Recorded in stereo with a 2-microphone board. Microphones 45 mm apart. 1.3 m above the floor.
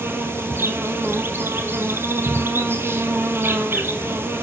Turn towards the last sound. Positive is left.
turn(degrees=-60)  # may be behind; listen again after turning